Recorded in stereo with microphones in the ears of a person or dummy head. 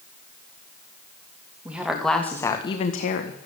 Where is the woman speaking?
10° right (ahead or behind), 2.5 m; by 3.5 s 65° left (ahead or behind), 1.7 m.